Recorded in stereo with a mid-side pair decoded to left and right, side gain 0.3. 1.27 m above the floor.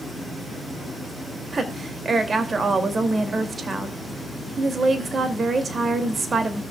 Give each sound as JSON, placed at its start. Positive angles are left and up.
{"t": 1.5, "sound": "a woman speaking", "azimuth_deg": -50, "distance_m": 2.5}